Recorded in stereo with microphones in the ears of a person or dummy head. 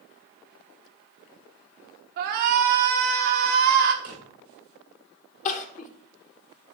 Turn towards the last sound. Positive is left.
turn(degrees=35)  # may be behind; listen again after turning